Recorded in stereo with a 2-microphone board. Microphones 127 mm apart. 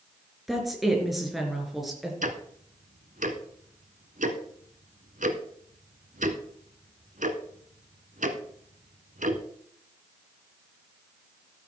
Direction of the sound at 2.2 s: 80° right.